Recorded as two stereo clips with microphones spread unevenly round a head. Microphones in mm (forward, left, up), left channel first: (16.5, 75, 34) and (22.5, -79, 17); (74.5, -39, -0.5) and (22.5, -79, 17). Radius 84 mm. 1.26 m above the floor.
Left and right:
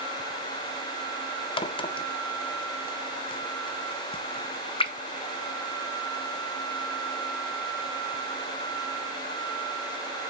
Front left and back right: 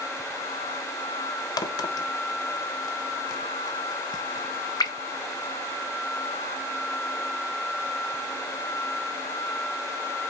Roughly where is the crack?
Ahead left.